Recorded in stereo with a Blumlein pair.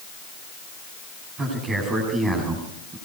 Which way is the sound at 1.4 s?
20° right.